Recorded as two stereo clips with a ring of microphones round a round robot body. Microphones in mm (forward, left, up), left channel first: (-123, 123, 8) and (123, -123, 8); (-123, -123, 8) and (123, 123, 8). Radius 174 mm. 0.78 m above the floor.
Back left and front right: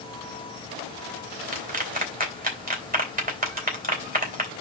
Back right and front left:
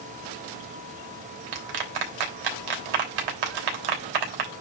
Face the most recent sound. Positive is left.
turn(degrees=20)